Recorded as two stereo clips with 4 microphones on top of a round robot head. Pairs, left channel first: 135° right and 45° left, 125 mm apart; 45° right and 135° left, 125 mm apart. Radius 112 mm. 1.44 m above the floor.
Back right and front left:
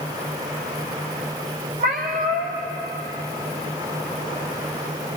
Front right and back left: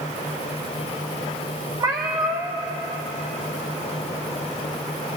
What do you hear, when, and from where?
1.8 s a cat meowing: 75° left, 0.7 m